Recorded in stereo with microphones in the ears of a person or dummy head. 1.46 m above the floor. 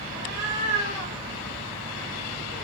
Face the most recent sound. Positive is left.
turn(degrees=-25)  # may be behind; listen again after turning